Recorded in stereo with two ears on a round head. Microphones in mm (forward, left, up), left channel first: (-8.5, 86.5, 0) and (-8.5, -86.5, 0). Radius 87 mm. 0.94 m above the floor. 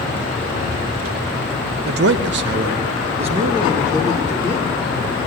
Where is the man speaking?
50° right (ahead or behind), 0.6 m; by 4.8 s 15° right (ahead or behind), 1.8 m.